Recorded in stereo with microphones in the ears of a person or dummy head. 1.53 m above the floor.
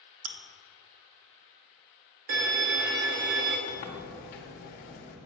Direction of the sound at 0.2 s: 70° right (ahead or behind).